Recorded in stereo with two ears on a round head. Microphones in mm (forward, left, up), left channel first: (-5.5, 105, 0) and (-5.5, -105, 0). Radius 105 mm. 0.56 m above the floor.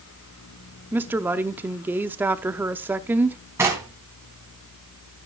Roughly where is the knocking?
Centre.